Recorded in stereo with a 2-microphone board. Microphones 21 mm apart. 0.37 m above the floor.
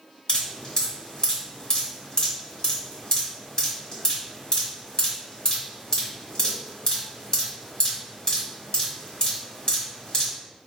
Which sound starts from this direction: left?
Dripping, at 0.3 s.